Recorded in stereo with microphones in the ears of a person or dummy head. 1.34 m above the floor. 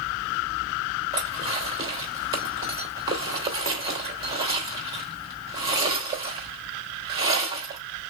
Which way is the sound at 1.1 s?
25° right (ahead or behind).